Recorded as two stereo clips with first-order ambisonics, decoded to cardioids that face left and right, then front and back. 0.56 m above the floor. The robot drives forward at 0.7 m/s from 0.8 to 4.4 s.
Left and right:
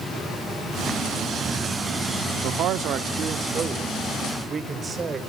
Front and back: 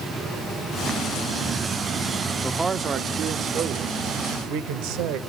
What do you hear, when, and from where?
2.4 s a man speaking: 90° right, 0.8 m; by 5.2 s 160° right, 1.6 m